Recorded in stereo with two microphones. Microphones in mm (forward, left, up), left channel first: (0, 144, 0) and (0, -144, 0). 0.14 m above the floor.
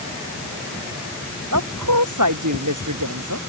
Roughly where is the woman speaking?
Right.